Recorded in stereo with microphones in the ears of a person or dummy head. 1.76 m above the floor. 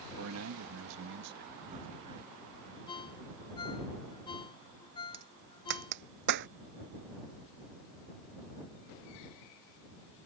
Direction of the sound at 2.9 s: 30° left (ahead or behind).